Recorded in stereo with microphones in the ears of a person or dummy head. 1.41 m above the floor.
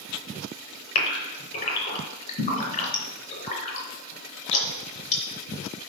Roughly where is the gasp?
Left.